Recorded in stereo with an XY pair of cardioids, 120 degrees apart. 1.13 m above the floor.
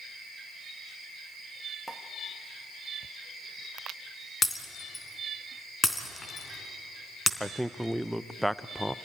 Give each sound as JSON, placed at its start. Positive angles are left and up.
{"t": 1.9, "sound": "a pop", "azimuth_deg": 0, "distance_m": 2.0}
{"t": 4.4, "sound": "breaking glass", "azimuth_deg": 20, "distance_m": 3.0}
{"t": 7.4, "sound": "a man speaking", "azimuth_deg": -5, "distance_m": 0.5}